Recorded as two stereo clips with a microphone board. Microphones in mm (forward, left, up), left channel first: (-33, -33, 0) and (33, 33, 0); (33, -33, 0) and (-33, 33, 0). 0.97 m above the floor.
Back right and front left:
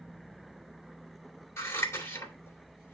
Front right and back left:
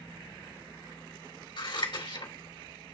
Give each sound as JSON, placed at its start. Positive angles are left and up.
{"t": 1.6, "sound": "scissors", "azimuth_deg": -70, "distance_m": 2.5}